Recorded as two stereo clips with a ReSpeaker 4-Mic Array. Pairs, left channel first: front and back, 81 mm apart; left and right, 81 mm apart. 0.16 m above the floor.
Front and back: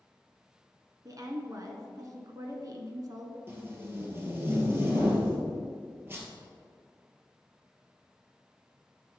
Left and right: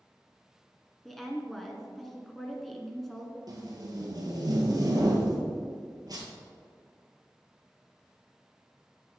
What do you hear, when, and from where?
1.1 s a woman speaking: 175° left, 1.4 m
3.5 s tape being pulled: 120° right, 1.9 m